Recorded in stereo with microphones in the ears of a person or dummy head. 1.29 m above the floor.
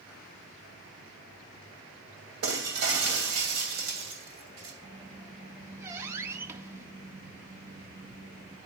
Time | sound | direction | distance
2.4 | breaking glass | 65° right (ahead or behind) | 2.5 m
4.8 | a squeak | 15° right (ahead or behind) | 0.7 m